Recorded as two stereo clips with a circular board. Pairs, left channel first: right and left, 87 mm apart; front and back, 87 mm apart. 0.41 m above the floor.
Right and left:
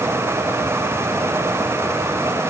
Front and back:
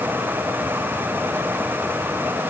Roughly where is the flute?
No flute in this recording.